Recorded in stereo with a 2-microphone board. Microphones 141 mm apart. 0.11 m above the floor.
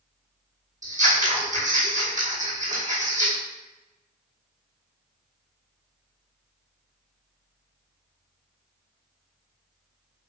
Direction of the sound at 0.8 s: 60° right (ahead or behind).